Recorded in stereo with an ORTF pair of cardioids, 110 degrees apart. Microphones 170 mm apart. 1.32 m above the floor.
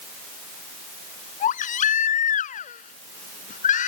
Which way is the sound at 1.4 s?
50° left.